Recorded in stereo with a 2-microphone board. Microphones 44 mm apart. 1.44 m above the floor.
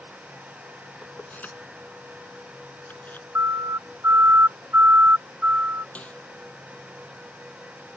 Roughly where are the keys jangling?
Left.